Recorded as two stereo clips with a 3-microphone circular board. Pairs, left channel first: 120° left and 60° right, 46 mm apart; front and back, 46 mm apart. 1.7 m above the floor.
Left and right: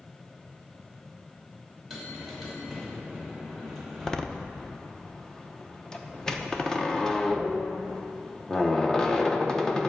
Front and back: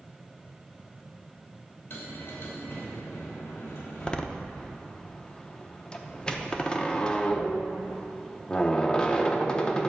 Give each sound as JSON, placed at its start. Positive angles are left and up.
{"t": 1.9, "sound": "a bell", "azimuth_deg": 30, "distance_m": 3.0}
{"t": 4.0, "sound": "a door slam", "azimuth_deg": 55, "distance_m": 0.8}